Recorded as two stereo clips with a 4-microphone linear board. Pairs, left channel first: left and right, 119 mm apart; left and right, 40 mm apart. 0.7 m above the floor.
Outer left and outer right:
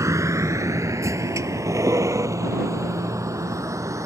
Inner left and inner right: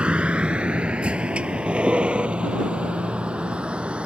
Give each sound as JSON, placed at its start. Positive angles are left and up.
{"t": 0.0, "sound": "a vehicle", "side_deg": -25}